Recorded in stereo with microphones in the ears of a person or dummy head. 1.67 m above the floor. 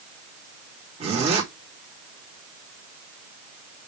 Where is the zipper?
40° right (ahead or behind), 3.5 m.